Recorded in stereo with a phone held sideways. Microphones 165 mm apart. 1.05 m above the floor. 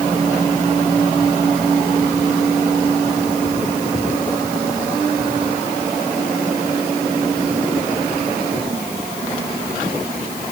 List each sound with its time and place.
Only background noise.